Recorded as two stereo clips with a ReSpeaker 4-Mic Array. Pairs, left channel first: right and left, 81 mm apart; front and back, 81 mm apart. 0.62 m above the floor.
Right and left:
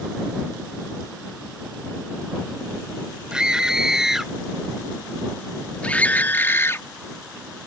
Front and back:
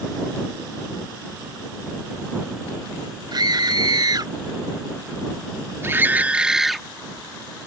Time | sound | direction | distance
3.3 | a scream | 170° left | ?